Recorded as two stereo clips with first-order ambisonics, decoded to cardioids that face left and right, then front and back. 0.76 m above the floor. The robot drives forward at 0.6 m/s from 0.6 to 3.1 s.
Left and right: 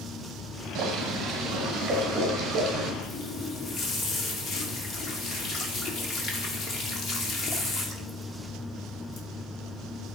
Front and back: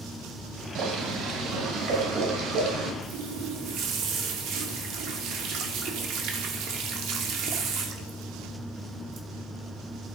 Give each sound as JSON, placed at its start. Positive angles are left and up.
{"t": 0.8, "sound": "boiling", "azimuth_deg": -140, "distance_m": 1.7}
{"t": 3.0, "sound": "a running tap", "azimuth_deg": 145, "distance_m": 1.1}